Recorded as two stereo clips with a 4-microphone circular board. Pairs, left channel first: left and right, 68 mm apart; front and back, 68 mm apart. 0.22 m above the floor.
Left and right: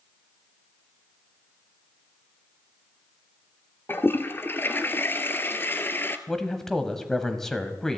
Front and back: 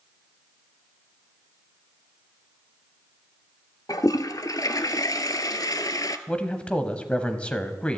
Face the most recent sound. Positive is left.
turn(degrees=20)